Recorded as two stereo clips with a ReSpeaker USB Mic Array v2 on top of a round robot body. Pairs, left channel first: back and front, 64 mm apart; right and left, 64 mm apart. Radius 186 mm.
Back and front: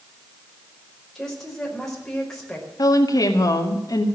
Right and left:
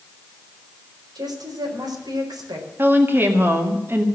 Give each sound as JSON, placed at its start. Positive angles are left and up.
{"t": 1.1, "sound": "a woman speaking", "azimuth_deg": 95, "distance_m": 5.0}
{"t": 2.8, "sound": "a woman speaking", "azimuth_deg": 150, "distance_m": 2.0}